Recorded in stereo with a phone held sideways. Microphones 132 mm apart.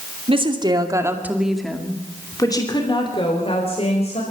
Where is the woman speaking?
45° right (ahead or behind), 2.5 m; by 4.2 s 55° left (ahead or behind), 4.5 m.